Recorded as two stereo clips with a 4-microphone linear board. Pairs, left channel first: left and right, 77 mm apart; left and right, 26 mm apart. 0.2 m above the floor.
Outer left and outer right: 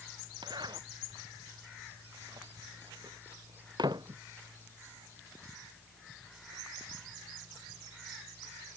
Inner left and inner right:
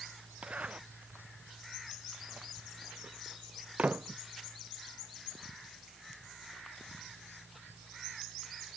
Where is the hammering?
I don't hear hammering.